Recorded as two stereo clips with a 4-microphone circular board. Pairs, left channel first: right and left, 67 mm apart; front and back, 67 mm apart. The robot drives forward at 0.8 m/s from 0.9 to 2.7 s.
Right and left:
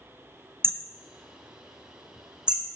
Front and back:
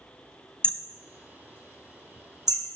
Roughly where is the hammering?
Left.